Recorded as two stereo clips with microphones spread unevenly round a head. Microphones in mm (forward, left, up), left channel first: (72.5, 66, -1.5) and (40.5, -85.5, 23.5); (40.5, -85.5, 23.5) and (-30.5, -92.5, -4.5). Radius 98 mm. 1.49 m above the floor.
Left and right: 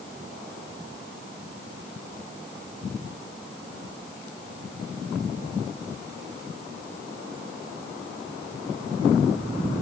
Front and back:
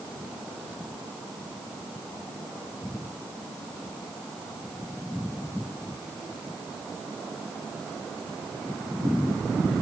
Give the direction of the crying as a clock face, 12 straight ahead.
No crying in this recording.